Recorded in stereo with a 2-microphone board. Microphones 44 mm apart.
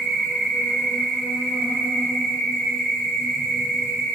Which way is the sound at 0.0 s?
Centre (ahead or behind).